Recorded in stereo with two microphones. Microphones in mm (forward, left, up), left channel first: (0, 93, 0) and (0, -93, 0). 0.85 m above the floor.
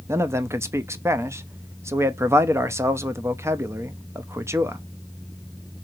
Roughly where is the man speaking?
Centre.